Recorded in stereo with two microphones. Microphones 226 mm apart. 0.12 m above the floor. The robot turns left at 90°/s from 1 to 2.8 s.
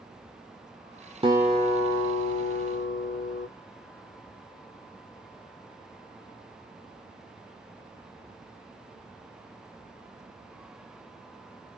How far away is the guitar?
About 1.1 m.